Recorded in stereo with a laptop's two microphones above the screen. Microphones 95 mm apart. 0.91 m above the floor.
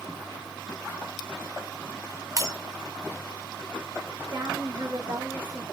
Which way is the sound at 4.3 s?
45° right (ahead or behind).